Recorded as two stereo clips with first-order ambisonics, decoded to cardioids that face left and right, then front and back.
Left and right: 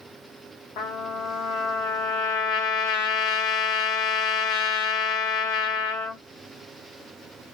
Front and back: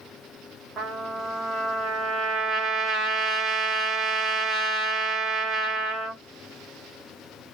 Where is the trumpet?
105° left, 0.9 m.